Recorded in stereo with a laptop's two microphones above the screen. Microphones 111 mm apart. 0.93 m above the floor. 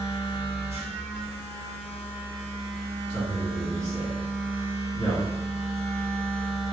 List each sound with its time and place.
0.0 s a machine running: 70° right (ahead or behind), 0.9 m
3.1 s a man speaking: 60° left (ahead or behind), 1.9 m